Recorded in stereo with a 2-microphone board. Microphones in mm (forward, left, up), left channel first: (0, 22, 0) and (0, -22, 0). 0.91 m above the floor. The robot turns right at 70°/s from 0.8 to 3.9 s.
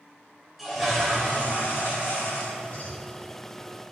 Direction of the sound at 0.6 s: 5° right.